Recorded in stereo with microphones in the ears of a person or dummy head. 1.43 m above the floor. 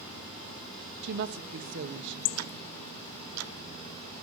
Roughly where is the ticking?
Right.